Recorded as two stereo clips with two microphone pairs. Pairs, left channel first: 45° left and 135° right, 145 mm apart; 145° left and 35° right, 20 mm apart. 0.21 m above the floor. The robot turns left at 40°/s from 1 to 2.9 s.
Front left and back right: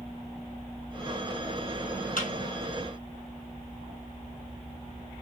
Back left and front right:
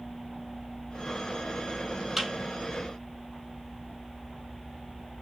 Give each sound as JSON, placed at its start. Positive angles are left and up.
{"t": 2.2, "sound": "a thud", "azimuth_deg": 40, "distance_m": 2.0}